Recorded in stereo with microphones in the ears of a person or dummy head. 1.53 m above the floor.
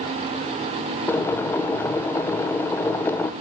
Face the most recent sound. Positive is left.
turn(degrees=15)  # may be behind; listen again after turning